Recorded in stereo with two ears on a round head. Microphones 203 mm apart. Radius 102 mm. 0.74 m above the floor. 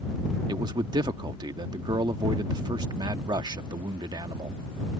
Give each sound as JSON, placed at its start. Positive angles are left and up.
{"t": 0.5, "sound": "a man speaking", "side_deg": -20}